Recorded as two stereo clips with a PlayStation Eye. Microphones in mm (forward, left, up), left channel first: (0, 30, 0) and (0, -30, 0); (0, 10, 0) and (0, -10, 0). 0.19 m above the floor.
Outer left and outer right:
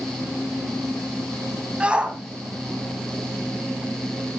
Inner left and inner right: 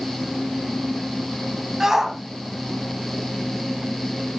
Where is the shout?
20° right (ahead or behind), 1.5 m.